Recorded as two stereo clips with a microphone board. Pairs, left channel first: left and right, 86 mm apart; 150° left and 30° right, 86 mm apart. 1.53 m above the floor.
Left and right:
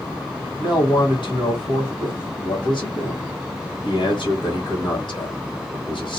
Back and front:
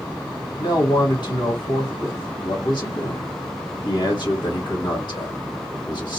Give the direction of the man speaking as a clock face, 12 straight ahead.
8 o'clock.